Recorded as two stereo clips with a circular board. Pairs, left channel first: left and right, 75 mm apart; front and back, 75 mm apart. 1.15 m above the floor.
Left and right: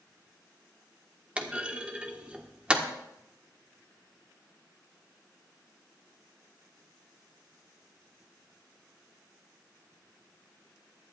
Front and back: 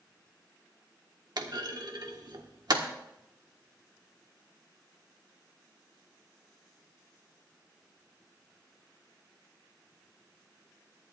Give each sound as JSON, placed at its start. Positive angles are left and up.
{"t": 1.4, "sound": "a clunk", "azimuth_deg": -165, "distance_m": 1.4}